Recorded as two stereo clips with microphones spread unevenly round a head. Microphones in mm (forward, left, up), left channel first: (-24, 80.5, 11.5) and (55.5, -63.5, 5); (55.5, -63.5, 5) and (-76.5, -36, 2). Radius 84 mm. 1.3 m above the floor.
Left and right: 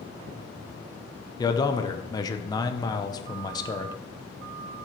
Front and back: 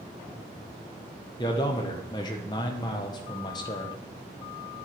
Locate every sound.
1.4 s a man speaking: 55° left, 1.0 m